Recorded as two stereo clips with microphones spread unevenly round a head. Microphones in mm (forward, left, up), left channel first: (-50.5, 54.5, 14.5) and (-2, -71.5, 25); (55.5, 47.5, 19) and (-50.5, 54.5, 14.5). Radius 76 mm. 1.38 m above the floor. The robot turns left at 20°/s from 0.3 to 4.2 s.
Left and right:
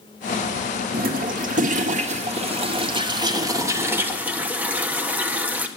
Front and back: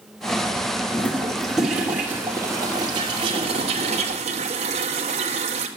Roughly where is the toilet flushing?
Right.